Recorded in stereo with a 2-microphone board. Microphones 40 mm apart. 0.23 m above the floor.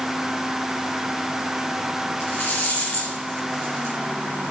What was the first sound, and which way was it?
A rattle, 65° left (ahead or behind).